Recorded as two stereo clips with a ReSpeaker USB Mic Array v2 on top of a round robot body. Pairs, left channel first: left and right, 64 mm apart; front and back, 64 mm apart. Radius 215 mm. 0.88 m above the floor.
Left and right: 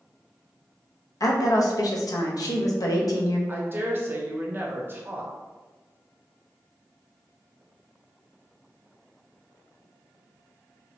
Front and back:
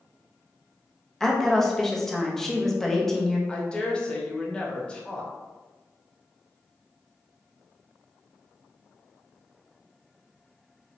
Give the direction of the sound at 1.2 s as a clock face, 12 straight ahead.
9 o'clock.